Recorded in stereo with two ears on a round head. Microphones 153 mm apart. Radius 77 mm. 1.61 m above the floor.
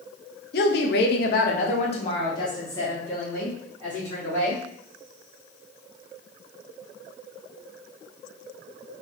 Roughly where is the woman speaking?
Left.